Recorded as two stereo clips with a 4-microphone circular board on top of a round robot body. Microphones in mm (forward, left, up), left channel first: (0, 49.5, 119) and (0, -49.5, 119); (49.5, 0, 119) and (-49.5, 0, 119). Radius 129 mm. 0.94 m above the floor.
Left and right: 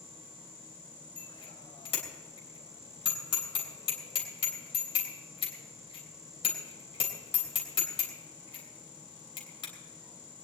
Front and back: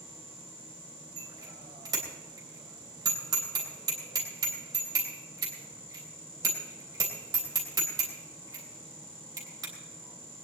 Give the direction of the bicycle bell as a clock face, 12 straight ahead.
8 o'clock.